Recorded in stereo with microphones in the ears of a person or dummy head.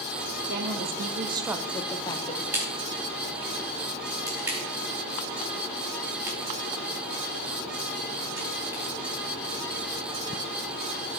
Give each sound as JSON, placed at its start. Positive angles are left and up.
{"t": 0.5, "sound": "a woman speaking", "side_deg": -65, "distance_m": 1.1}
{"t": 2.5, "sound": "a crack", "side_deg": -20, "distance_m": 2.5}